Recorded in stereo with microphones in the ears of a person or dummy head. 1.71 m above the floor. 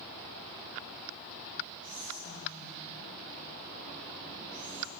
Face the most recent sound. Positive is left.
turn(degrees=50)  # may be behind; listen again after turning